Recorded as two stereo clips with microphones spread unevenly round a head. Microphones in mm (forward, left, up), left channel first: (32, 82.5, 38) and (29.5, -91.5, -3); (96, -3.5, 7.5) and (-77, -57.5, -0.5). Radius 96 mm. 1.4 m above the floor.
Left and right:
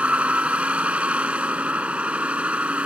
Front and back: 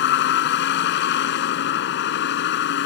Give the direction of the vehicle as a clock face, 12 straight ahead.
12 o'clock.